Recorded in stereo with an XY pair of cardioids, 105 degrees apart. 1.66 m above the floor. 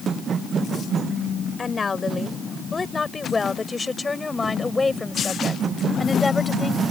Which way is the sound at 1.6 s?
30° left.